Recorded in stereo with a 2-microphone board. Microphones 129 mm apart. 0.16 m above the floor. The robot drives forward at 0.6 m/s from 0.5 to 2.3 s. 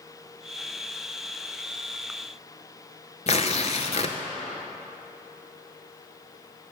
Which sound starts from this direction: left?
Tearing paper, at 3.3 s.